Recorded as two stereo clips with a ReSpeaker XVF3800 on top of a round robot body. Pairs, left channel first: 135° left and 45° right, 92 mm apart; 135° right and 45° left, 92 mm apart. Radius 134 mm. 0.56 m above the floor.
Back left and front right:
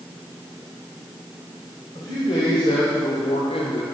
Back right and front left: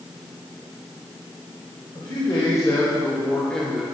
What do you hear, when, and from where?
1.9 s a man speaking: straight behind, 3 m; by 3.9 s 135° left, 1.9 m